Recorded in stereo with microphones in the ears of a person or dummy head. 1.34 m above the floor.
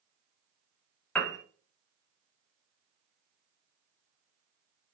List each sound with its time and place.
1.1 s a piano: 5° left (ahead or behind), 0.8 m